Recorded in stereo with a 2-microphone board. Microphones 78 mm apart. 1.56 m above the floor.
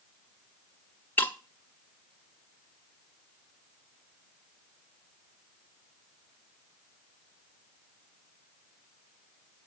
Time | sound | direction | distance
1.2 | breaking glass | 20° left (ahead or behind) | 1.3 m